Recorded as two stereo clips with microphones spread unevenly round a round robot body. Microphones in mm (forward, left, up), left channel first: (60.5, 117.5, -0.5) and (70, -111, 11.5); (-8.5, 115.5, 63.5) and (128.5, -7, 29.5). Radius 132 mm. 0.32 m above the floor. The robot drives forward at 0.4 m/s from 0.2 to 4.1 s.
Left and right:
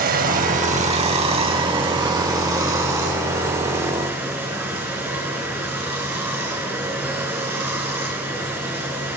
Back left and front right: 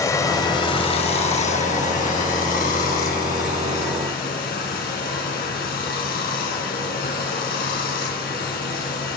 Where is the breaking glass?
No breaking glass in this recording.